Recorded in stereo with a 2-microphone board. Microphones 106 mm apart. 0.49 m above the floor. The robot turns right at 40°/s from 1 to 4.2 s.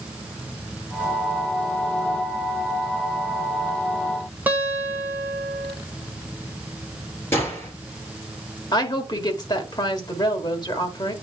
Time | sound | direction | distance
4.5 | a guitar | 15° right (ahead or behind) | 1.6 m
7.3 | a gunshot | 25° left (ahead or behind) | 3.5 m
8.7 | a woman speaking | 40° left (ahead or behind) | 1.3 m